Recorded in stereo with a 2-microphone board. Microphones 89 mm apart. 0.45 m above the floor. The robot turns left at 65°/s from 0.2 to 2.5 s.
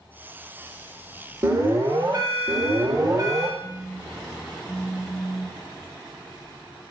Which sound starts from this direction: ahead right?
An alarm, at 1.4 s.